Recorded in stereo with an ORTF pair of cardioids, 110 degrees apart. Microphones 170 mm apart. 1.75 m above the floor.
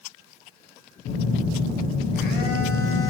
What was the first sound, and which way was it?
A phone buzzing, 65° left.